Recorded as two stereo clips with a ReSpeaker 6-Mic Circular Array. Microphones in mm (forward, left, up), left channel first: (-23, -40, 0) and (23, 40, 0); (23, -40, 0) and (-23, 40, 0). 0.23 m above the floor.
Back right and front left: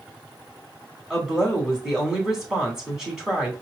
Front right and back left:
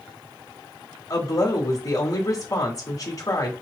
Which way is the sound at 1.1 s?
25° right.